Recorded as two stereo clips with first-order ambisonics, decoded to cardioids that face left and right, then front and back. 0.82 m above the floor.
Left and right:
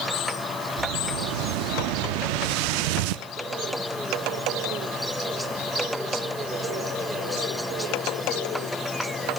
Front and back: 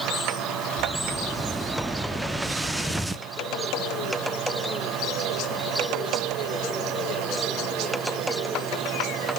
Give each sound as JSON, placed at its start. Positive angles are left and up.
{"t": 0.8, "sound": "an explosion", "azimuth_deg": -95, "distance_m": 0.7}